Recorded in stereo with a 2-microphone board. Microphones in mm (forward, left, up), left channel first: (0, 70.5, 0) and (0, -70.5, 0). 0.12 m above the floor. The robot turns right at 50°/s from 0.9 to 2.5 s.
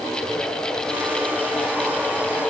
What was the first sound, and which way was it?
Only background noise.